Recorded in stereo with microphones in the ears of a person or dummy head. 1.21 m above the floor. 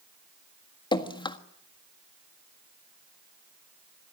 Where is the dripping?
20° left (ahead or behind), 1.5 m.